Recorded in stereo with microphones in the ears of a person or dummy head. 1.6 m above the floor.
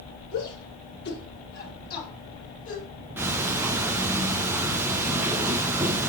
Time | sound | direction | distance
0.3 | a shout | 65° left (ahead or behind) | 6.5 m
3.2 | ticking | 10° right (ahead or behind) | 1.0 m